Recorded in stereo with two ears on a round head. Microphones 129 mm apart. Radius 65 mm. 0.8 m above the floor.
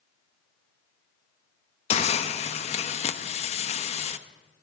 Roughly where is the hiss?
Left.